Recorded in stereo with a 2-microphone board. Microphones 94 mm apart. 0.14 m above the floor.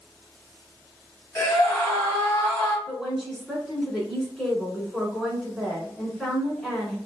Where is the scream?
25° left (ahead or behind), 1.7 m.